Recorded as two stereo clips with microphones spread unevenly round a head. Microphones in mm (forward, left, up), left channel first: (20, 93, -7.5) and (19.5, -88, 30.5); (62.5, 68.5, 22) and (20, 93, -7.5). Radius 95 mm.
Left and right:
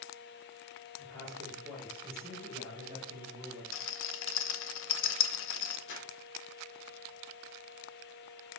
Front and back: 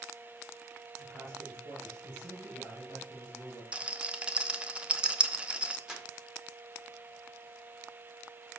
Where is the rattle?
85° left, 1.0 m.